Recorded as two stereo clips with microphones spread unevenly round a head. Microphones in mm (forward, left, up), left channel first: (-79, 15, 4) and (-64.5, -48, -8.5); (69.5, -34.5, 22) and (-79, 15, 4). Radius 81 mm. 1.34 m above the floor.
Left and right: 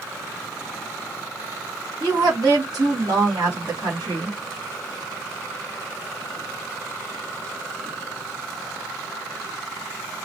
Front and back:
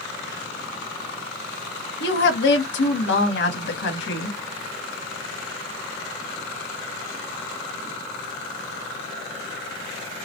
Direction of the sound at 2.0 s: 30° right.